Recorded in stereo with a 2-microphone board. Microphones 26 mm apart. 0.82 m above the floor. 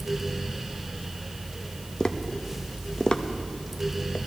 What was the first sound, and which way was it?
Tapping, 40° left (ahead or behind).